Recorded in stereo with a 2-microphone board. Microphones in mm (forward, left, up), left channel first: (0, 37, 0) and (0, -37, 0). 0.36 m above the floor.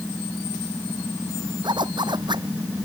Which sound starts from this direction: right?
A zipper, at 1.6 s.